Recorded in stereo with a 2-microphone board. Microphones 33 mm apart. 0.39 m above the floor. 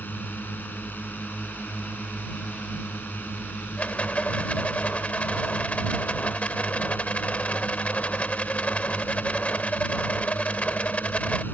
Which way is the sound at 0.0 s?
70° left (ahead or behind).